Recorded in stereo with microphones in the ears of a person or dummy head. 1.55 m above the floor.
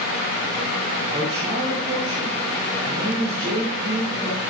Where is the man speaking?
25° right (ahead or behind), 2.5 m.